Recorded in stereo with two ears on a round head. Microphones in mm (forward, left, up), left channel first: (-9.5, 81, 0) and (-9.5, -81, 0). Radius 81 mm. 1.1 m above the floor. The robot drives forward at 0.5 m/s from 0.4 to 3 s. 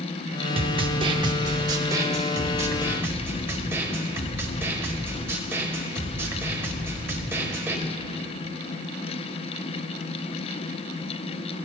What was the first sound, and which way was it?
A snare drum, 30° right (ahead or behind).